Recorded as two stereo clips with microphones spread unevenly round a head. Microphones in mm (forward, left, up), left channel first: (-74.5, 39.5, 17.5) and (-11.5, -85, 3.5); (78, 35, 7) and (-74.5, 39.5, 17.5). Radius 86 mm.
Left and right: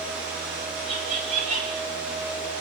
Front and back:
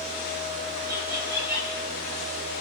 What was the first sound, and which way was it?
Laughter, 105° right.